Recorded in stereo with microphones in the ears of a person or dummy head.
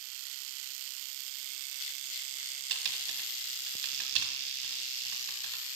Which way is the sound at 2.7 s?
70° right (ahead or behind).